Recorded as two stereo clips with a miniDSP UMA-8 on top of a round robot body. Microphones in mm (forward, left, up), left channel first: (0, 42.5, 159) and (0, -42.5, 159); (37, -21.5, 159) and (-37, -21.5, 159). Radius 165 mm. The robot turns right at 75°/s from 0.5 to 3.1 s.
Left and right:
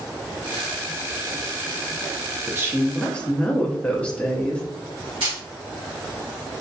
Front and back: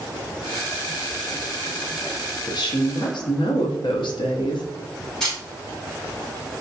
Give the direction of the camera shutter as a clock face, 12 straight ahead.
3 o'clock.